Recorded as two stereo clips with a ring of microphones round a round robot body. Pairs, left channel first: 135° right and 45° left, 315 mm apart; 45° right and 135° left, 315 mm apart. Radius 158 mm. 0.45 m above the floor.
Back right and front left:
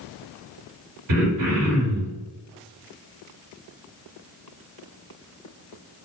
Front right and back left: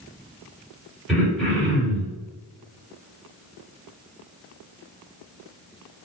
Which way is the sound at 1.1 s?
45° left.